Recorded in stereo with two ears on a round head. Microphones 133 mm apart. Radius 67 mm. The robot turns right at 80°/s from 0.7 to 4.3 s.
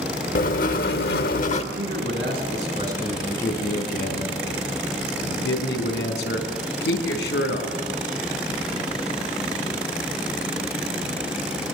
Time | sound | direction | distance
0.3 | writing | 60° left | 1.2 m
1.7 | a man speaking | 115° right | 4.5 m